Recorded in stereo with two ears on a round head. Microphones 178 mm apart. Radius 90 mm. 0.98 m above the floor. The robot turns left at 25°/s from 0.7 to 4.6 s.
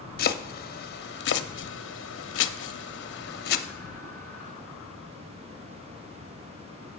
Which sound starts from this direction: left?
Chopping, at 0.2 s.